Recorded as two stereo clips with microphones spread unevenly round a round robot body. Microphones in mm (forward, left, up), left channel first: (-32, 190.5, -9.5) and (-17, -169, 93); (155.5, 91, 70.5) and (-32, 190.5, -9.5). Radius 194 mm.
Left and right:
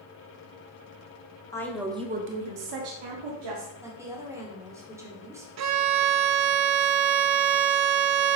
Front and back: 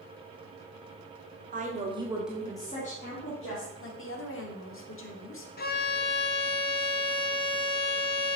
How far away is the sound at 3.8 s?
About 2 m.